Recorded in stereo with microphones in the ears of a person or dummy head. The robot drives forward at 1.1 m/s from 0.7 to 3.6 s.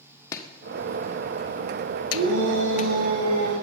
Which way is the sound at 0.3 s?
25° left (ahead or behind).